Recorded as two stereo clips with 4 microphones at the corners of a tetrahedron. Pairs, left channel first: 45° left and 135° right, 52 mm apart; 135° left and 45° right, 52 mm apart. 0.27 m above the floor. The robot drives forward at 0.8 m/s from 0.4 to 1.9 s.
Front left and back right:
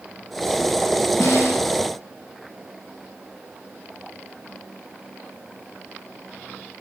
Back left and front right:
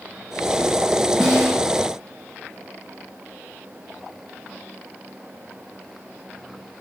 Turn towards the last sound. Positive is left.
turn(degrees=60)